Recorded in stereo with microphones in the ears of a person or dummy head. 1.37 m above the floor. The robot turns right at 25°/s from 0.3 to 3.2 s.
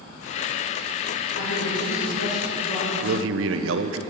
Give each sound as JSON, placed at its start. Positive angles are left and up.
{"t": 1.4, "sound": "a woman speaking", "azimuth_deg": 85, "distance_m": 3.5}
{"t": 3.0, "sound": "a man speaking", "side_deg": -85, "distance_m": 0.6}